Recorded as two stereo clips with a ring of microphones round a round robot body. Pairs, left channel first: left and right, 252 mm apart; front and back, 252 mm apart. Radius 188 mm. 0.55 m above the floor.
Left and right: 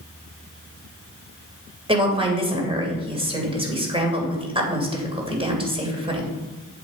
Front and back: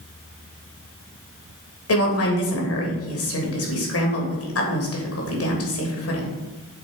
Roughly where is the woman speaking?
Ahead.